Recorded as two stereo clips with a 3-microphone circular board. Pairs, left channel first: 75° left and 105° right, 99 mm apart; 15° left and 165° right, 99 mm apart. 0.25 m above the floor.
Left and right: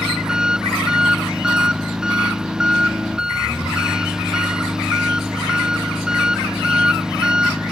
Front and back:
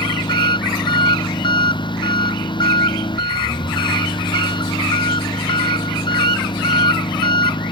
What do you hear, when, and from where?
0.0 s an engine running: 20° right